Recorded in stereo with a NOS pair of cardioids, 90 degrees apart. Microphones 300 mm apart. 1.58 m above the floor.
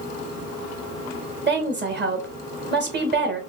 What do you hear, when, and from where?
1.5 s a woman speaking: 35° right, 1.6 m